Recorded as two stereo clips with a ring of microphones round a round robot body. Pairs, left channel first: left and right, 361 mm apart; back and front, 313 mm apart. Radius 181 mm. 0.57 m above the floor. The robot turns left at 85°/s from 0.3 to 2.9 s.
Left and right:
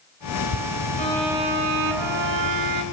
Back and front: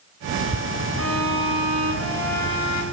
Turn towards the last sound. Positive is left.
turn(degrees=-140)